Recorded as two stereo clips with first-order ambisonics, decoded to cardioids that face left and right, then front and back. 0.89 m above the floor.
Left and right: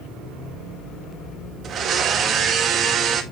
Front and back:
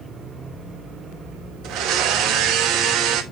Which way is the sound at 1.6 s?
150° right.